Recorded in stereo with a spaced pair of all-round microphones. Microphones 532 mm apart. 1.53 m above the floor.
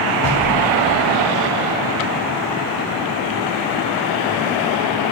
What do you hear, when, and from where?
0.2 s knocking: 50° left (ahead or behind), 6 m